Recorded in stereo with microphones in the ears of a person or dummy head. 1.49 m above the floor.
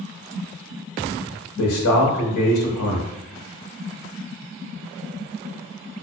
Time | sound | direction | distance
1.6 | a man speaking | 80° left | 1.2 m